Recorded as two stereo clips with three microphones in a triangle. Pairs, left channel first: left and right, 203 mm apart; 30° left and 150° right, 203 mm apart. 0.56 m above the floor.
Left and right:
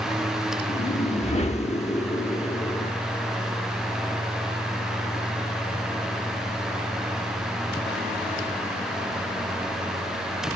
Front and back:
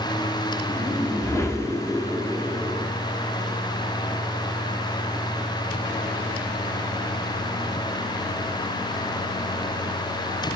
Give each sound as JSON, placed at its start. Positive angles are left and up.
{"t": 0.7, "sound": "a whoosh", "azimuth_deg": 95, "distance_m": 1.1}